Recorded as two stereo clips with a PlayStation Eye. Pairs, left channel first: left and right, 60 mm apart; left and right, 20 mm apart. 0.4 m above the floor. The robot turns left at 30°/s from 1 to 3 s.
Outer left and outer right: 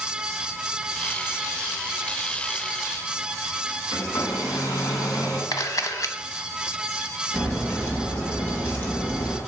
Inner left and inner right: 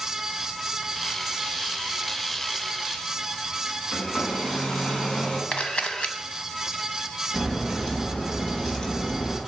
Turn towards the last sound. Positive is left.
turn(degrees=40)  # may be behind; listen again after turning